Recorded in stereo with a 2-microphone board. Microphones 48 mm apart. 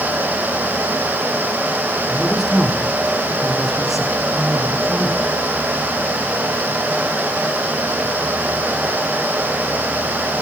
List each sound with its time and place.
2.1 s a man speaking: centre (ahead or behind), 6 m